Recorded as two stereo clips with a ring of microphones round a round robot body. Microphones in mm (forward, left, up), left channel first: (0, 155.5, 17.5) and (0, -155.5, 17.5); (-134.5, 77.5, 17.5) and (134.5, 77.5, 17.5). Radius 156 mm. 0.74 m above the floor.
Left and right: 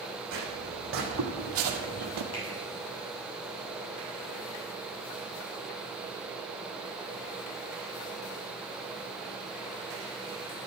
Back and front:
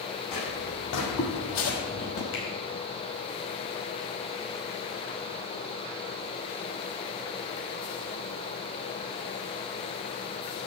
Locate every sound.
0.3 s footsteps: 140° right, 2.5 m; by 2.2 s 125° right, 1.2 m
2.3 s a finger snap: 135° left, 4.5 m